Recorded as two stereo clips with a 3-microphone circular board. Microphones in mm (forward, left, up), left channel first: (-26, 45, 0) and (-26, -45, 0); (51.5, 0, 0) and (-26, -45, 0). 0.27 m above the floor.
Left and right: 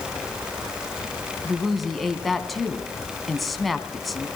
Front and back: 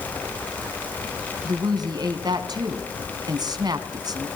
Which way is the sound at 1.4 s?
Straight behind.